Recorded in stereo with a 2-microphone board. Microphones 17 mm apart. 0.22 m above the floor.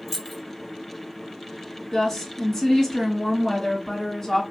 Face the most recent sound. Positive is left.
turn(degrees=25)  # may be behind; listen again after turning